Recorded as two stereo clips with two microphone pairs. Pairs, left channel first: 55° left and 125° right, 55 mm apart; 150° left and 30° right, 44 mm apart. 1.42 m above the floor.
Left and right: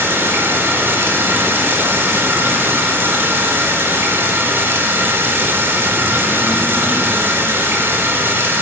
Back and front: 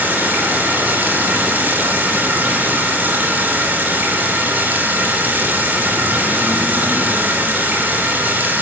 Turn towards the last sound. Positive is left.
turn(degrees=-75)